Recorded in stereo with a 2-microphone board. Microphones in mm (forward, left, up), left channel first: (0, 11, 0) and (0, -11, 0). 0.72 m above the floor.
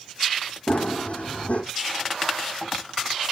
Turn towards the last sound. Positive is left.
turn(degrees=70)  # may be behind; listen again after turning